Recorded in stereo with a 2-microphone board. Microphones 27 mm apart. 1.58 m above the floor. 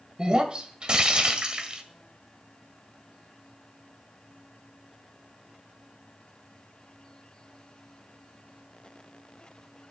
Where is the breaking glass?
35° right (ahead or behind), 1.6 m.